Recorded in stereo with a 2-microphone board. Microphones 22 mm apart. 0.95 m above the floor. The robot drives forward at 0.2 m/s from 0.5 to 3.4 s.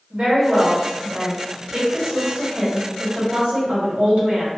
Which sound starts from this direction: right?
A woman speaking, at 0.1 s.